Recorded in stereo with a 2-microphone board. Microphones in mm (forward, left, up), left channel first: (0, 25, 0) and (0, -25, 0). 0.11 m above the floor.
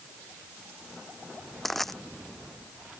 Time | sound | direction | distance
1.6 | crushing | 5° left (ahead or behind) | ?